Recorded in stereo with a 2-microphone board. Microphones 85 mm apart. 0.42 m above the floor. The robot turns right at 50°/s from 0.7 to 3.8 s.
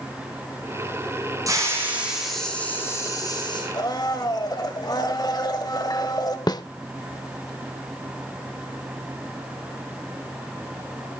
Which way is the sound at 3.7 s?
55° left (ahead or behind).